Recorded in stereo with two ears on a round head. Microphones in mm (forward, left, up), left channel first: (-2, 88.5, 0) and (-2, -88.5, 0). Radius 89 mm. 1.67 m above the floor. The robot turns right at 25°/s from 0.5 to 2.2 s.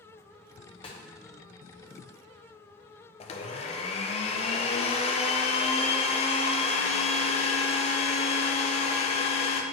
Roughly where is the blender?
Left.